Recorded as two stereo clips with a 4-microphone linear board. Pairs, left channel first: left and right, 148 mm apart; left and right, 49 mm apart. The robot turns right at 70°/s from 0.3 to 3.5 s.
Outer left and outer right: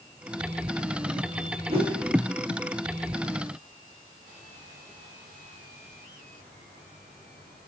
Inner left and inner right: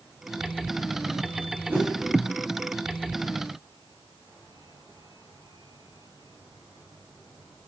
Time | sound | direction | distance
1.7 | a whoosh | 35° right (ahead or behind) | 6.5 m